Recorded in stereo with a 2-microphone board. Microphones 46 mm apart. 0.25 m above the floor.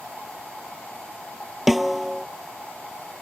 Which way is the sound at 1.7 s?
5° right (ahead or behind).